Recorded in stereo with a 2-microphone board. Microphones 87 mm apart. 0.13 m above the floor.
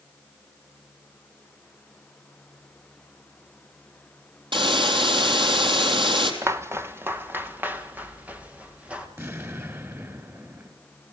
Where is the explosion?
30° right (ahead or behind), 2.0 m.